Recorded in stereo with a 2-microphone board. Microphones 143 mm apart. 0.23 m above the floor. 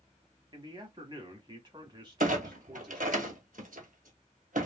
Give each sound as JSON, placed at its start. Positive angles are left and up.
{"t": 0.5, "sound": "a man speaking", "side_deg": -30, "distance_m": 1.2}
{"t": 2.2, "sound": "a clunk", "side_deg": -80, "distance_m": 1.0}